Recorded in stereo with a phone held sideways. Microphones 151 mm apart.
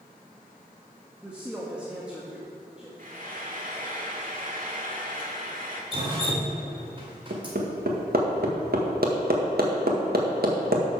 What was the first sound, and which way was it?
A woman speaking, 10° right (ahead or behind).